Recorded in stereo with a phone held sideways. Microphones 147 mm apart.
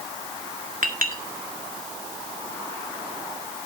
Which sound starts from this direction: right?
A clink, at 0.8 s.